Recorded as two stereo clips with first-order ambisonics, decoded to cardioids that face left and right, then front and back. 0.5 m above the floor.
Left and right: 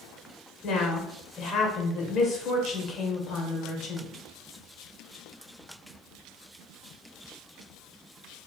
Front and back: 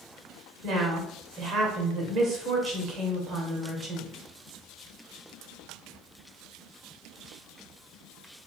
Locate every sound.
0.6 s a woman speaking: 135° left, 1.7 m